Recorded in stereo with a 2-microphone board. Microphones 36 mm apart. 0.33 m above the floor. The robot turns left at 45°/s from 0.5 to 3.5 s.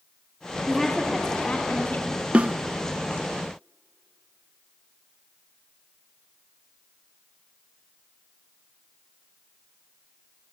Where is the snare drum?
40° right (ahead or behind), 0.6 m; by 2.6 s 30° right (ahead or behind), 0.6 m.